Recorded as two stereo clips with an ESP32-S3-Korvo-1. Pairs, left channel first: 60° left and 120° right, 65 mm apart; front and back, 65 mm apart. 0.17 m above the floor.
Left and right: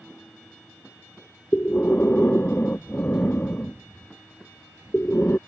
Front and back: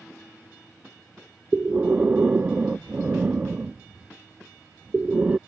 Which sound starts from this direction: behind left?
Breathing, at 1.5 s.